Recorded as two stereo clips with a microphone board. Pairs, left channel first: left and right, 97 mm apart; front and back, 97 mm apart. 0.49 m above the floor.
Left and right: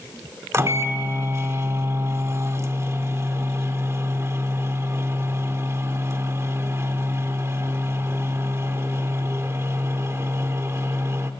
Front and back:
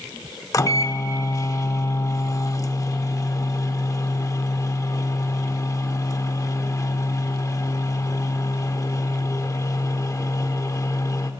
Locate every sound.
0.5 s a microwave: 40° right, 0.7 m